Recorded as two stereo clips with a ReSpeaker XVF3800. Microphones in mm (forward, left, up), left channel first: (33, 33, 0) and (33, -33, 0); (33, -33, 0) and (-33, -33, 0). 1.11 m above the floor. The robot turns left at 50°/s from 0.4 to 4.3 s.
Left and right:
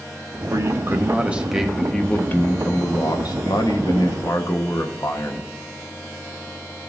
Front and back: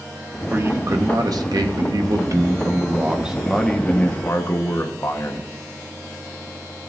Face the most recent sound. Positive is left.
turn(degrees=50)